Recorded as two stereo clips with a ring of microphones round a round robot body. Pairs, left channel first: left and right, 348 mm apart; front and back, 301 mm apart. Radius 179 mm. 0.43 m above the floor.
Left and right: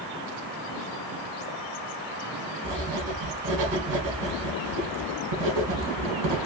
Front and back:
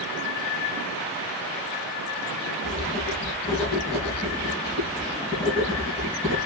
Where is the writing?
75° right, 1.6 m.